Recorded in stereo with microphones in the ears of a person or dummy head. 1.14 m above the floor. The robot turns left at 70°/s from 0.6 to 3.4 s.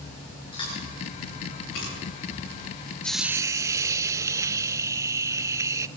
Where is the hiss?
5° left (ahead or behind), 0.6 m; by 5.9 s 15° right (ahead or behind), 0.6 m.